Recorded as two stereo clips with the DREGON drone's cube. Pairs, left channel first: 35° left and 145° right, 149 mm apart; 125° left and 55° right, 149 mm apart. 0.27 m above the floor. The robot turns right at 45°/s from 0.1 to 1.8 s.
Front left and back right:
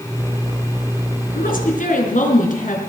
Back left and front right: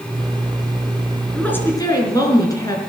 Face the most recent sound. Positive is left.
turn(degrees=60)